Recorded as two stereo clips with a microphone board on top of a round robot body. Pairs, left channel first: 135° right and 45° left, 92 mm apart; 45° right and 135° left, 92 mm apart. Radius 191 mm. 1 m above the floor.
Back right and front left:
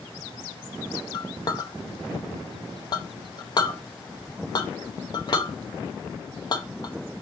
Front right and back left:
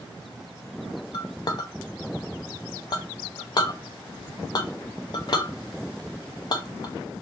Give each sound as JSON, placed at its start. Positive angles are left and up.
{"t": 1.1, "sound": "a clink", "azimuth_deg": -90, "distance_m": 0.8}